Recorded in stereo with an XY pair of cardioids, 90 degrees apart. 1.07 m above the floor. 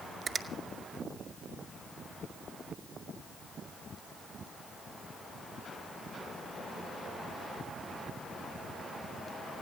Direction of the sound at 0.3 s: 50° right.